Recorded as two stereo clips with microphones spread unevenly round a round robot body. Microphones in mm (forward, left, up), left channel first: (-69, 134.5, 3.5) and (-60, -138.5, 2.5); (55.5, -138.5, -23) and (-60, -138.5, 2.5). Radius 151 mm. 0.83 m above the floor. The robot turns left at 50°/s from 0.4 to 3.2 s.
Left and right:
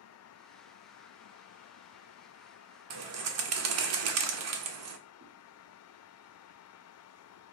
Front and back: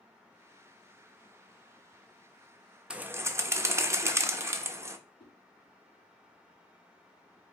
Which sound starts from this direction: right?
A bird, at 2.9 s.